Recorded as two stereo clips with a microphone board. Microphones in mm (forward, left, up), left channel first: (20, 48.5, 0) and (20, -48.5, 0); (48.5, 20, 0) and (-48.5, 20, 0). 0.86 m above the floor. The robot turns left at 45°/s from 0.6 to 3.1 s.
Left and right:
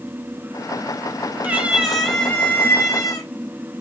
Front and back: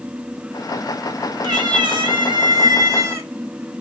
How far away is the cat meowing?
About 1.2 m.